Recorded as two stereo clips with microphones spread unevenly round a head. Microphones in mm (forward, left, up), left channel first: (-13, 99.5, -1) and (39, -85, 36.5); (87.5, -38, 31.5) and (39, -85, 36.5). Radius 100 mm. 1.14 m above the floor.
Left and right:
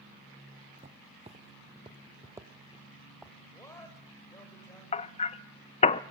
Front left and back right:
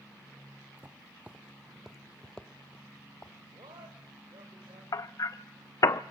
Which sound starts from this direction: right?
Footsteps, at 0.8 s.